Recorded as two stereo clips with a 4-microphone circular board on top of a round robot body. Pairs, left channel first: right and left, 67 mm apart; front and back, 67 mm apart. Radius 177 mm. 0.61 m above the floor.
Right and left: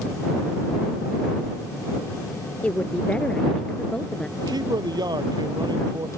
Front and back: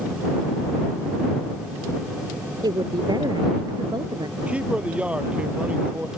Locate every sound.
2.6 s a woman speaking: 160° right; by 4.3 s 170° right
4.4 s a man speaking: 110° left